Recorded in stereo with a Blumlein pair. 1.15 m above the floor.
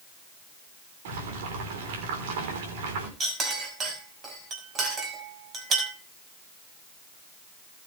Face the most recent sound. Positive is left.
turn(degrees=-25)